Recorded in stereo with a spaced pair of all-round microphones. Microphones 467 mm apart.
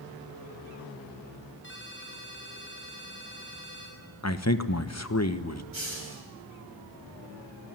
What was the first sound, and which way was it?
A ringtone, 25° left (ahead or behind).